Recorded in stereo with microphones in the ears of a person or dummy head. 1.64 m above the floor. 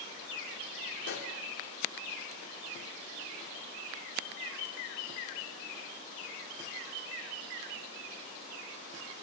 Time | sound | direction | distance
1.0 | a pop | 60° left (ahead or behind) | 3 m